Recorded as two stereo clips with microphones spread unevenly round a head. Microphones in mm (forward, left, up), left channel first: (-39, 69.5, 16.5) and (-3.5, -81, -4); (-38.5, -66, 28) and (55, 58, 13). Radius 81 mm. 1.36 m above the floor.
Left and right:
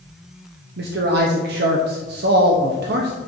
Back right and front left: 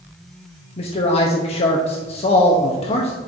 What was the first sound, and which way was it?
A man speaking, 75° right.